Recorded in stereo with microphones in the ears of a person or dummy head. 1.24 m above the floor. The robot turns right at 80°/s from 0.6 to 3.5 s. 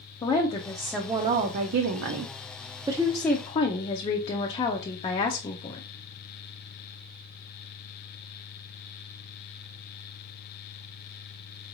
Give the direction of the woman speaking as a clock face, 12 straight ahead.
7 o'clock.